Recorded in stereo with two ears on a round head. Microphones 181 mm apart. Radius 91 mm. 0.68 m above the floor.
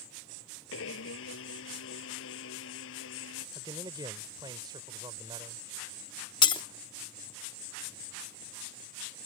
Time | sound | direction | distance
0.7 | a blender | 75° left (ahead or behind) | ?
3.5 | a man speaking | 20° right (ahead or behind) | ?
6.4 | breaking glass | 25° left (ahead or behind) | ?